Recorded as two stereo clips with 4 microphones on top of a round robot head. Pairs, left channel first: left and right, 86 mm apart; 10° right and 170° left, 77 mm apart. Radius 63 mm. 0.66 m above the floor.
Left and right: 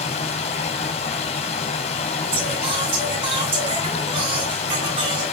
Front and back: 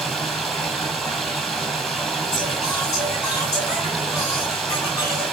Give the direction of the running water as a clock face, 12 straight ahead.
9 o'clock.